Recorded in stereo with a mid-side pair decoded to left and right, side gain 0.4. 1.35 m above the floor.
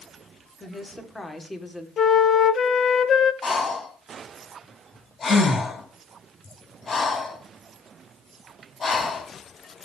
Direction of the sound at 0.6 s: 25° left.